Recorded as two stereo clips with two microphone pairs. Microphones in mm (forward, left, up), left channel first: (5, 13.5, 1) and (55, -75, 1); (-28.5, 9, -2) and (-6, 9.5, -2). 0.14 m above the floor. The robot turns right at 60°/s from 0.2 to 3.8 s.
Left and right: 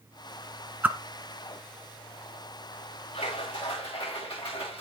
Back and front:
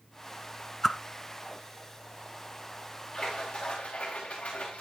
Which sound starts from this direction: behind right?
A whoosh, at 0.8 s.